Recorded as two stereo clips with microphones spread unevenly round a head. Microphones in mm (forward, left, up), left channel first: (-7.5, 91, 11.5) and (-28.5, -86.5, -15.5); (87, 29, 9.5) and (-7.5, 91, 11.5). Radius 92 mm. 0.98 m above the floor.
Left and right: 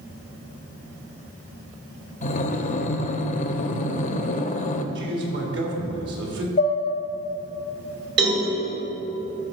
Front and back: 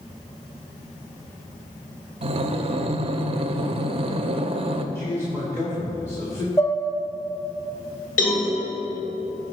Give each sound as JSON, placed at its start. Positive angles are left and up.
{"t": 2.2, "sound": "breathing", "azimuth_deg": 120, "distance_m": 0.6}
{"t": 5.0, "sound": "a man speaking", "azimuth_deg": -110, "distance_m": 2.0}
{"t": 6.6, "sound": "dishes clattering", "azimuth_deg": 35, "distance_m": 1.3}
{"t": 8.2, "sound": "a cowbell", "azimuth_deg": -60, "distance_m": 2.5}